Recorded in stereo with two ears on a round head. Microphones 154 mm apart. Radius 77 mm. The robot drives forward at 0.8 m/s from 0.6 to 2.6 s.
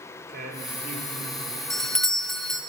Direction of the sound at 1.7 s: 5° left (ahead or behind).